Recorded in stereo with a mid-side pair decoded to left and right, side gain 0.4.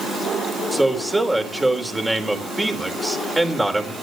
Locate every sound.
0.7 s a man speaking: 15° right, 4.5 m